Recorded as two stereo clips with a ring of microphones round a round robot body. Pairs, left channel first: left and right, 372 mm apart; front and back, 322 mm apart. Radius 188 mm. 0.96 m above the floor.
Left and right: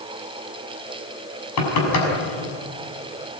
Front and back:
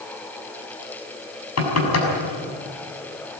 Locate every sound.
1.6 s knocking: 40° left, 6 m